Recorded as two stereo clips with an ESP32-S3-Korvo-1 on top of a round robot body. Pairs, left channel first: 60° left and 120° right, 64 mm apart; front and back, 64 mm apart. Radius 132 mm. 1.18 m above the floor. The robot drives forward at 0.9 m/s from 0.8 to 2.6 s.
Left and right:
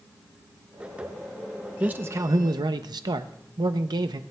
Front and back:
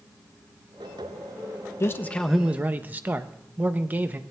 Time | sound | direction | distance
1.8 | a man speaking | 50° right | 0.7 m